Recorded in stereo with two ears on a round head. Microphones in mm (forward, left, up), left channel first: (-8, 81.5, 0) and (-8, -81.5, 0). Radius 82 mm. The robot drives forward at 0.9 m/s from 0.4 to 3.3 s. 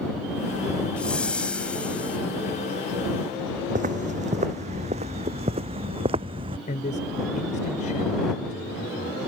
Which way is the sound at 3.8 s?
40° right (ahead or behind).